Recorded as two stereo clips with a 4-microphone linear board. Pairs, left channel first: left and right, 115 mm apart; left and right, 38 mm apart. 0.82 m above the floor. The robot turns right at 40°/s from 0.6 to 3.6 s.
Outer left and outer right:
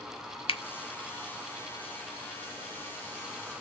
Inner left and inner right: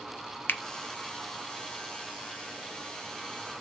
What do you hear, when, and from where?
0.5 s a finger snap: 60° left (ahead or behind), 0.6 m